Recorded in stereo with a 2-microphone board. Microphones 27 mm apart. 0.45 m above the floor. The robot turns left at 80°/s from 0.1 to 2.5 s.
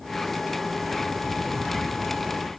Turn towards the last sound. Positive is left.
No sound to turn to.